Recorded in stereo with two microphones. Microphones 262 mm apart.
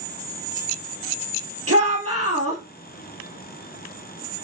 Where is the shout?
60° right (ahead or behind), 3.5 m.